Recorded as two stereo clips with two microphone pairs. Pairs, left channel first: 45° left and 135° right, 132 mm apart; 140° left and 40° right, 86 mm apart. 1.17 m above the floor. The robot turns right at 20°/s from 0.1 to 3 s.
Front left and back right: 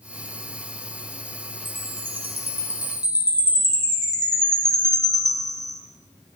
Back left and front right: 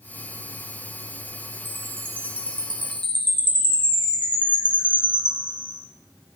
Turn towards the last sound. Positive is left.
turn(degrees=-15)